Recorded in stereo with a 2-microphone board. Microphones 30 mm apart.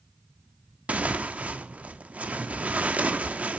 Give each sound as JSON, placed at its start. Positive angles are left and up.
{"t": 0.9, "sound": "tearing paper", "side_deg": -60, "distance_m": 0.8}